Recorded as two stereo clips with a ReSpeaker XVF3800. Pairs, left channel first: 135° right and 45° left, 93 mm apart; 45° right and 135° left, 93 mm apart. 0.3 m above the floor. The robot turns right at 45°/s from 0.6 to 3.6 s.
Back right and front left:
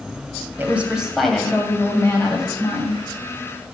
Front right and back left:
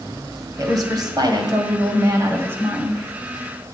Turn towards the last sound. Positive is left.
turn(degrees=-120)